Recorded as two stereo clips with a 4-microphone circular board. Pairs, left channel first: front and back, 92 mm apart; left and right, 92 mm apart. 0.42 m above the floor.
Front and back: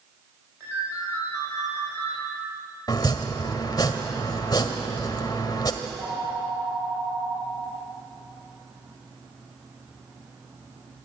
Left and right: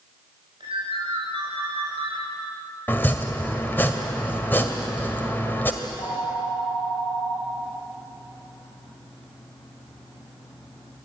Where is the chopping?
30° left, 1.7 m.